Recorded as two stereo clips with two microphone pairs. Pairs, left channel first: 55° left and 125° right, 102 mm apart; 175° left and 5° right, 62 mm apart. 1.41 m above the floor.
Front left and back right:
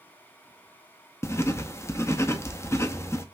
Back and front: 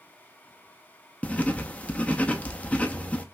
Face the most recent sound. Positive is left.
turn(degrees=115)